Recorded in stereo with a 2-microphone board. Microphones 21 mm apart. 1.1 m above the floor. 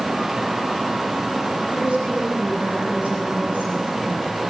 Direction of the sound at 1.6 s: 80° right.